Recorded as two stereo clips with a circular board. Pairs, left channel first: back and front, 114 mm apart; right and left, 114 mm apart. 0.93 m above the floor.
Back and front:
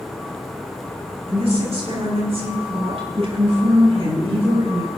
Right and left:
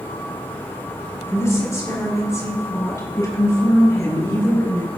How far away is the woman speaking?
About 7 m.